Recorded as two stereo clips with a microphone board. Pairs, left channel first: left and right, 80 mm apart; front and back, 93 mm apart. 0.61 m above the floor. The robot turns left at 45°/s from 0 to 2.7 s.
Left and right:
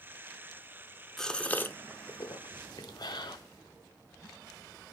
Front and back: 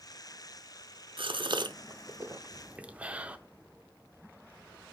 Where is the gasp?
175° left, 0.6 m; by 3.4 s 105° left, 0.6 m.